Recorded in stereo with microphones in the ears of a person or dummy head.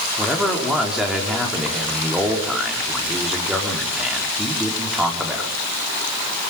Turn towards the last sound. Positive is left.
turn(degrees=-10)  # may be behind; listen again after turning